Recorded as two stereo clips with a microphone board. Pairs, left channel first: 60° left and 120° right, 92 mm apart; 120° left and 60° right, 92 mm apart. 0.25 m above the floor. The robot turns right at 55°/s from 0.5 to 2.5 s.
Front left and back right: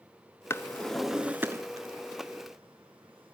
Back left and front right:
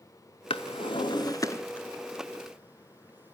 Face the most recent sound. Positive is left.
turn(degrees=-130)